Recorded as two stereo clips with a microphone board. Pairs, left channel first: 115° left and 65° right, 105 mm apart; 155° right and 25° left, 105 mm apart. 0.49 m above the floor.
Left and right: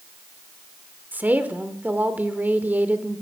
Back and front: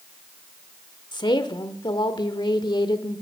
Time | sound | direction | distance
1.1 | a woman speaking | 135° right | 1.1 m